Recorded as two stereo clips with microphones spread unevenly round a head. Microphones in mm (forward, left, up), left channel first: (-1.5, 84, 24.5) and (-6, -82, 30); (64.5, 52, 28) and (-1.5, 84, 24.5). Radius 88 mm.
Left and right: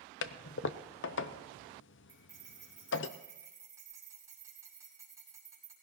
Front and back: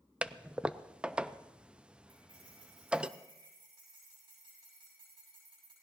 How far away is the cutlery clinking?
About 6 m.